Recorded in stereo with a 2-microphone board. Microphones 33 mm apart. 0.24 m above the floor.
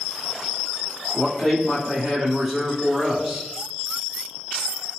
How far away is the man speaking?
About 1.2 m.